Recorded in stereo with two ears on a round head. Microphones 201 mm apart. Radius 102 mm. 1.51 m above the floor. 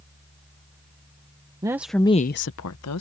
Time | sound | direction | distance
1.6 | a woman speaking | 15° right (ahead or behind) | ?